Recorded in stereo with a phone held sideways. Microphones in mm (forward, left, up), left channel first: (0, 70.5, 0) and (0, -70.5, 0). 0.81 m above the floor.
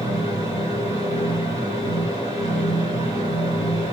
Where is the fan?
25° right (ahead or behind), 7 m.